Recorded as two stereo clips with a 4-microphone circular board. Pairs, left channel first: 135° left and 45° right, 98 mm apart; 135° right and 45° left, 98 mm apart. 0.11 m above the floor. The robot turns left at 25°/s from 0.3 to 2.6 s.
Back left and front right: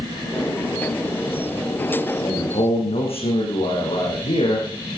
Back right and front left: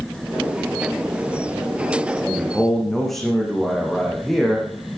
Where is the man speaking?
150° left, 7 m; by 5.0 s 140° left, 7 m.